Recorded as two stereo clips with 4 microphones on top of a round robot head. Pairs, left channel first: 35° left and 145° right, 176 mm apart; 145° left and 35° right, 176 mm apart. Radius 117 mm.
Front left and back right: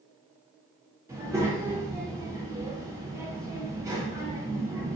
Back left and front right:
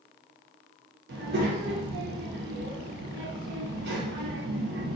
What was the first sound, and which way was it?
A child speaking, 70° right.